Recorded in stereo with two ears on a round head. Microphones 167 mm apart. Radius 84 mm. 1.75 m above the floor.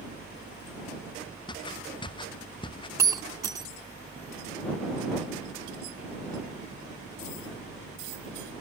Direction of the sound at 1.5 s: 25° left (ahead or behind).